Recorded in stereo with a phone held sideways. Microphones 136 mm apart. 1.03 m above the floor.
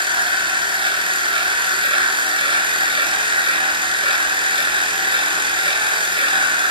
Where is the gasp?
No gasp in this recording.